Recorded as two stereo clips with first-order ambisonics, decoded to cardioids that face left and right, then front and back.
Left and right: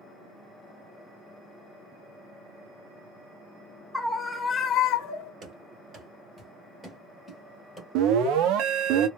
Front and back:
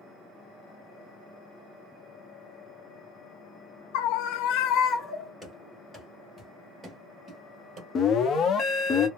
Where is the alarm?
60° right, 0.6 m.